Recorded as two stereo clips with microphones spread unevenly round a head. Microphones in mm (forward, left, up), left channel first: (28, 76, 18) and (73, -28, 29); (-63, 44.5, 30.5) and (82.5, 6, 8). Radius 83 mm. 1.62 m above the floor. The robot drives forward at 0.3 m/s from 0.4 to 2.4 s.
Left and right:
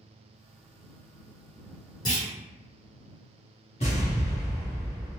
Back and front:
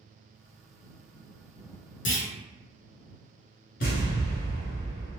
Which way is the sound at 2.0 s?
175° left.